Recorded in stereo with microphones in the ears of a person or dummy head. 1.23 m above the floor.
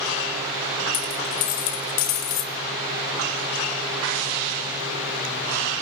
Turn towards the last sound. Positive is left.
turn(degrees=40)  # may be behind; listen again after turning